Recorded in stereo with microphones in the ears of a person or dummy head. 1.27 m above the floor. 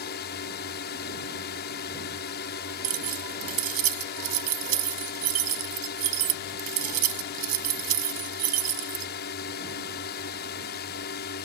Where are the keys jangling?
50° right (ahead or behind).